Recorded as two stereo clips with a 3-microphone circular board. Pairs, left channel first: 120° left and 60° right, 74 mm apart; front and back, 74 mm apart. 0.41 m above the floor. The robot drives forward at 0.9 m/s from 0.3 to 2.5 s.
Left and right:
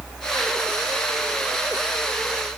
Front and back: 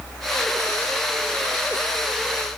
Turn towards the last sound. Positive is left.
No sound to turn to.